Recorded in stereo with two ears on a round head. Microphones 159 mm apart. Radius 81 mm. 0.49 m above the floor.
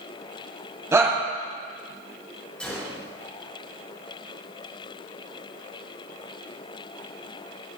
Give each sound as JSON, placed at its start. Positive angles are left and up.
{"t": 0.9, "sound": "a shout", "side_deg": -20, "distance_m": 2.5}
{"t": 2.6, "sound": "a gunshot", "side_deg": 5, "distance_m": 5.0}